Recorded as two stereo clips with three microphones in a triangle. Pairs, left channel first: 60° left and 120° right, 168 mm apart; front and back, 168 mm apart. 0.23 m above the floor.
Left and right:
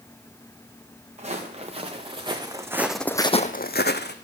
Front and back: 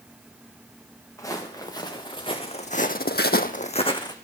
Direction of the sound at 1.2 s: 70° right.